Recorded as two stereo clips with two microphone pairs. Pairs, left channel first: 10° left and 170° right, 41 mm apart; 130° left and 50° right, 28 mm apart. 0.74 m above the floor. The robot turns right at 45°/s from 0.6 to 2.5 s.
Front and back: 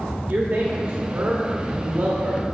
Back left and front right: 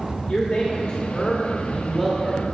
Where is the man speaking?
160° left, 1.1 m; by 2.5 s 115° right, 1.1 m.